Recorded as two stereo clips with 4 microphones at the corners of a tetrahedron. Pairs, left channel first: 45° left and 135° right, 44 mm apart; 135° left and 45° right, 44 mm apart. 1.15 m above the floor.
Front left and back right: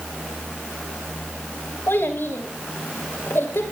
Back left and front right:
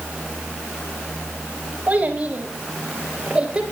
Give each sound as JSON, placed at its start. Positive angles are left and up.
{"t": 1.9, "sound": "a child speaking", "azimuth_deg": 15, "distance_m": 4.5}